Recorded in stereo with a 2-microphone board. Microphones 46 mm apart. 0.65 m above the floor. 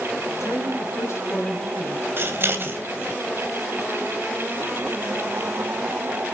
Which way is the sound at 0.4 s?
80° left.